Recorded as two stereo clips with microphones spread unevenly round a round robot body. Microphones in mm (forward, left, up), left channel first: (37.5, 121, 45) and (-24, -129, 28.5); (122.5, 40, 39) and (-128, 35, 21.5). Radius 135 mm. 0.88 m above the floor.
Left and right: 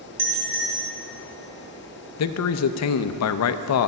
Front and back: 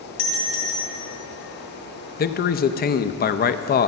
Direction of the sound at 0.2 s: 25° right.